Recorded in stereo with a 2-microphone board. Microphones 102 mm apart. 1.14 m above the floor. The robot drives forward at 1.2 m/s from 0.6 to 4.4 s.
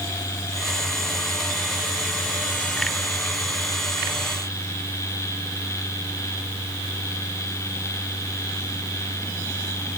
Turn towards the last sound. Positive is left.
No sound to turn to.